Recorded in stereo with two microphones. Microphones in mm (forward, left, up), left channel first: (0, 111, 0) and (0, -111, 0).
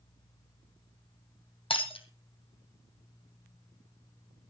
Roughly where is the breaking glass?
Left.